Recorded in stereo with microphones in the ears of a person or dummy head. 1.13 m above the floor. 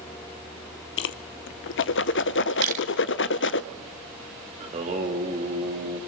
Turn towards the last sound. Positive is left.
turn(degrees=-30)  # may be behind; listen again after turning